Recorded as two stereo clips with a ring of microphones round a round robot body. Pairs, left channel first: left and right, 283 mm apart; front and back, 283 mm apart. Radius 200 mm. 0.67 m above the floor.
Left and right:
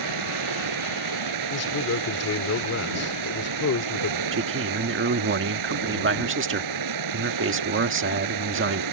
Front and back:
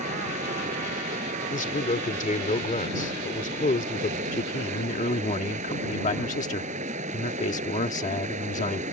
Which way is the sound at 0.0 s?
105° right.